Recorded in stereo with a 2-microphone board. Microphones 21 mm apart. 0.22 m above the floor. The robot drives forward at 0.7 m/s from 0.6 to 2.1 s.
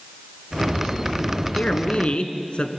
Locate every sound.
1.5 s a man speaking: 60° left (ahead or behind), 2 m